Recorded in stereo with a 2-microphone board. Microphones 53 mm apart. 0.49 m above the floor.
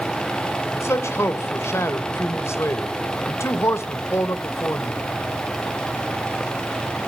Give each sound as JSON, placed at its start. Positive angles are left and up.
{"t": 0.7, "sound": "a man speaking", "side_deg": 60, "distance_m": 1.5}